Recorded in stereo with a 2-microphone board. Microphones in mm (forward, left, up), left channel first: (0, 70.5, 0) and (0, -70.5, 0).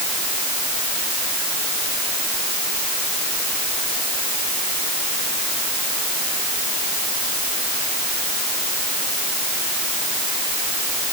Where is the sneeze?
I don't hear a sneeze.